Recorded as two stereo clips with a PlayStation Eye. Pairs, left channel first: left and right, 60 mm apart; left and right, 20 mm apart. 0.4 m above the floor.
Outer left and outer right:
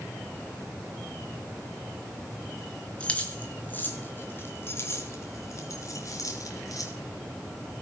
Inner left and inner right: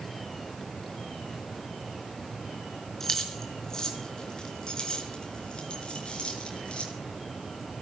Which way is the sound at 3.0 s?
20° left (ahead or behind).